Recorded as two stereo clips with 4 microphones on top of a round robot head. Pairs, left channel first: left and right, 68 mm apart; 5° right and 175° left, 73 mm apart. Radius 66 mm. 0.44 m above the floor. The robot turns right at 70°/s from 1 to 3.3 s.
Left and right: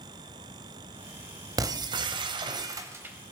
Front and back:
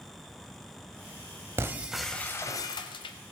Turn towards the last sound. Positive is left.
turn(degrees=-5)